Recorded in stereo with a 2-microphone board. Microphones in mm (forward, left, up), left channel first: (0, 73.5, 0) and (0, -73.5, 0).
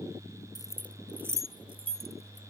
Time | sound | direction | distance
0.6 | keys jangling | 30° left (ahead or behind) | ?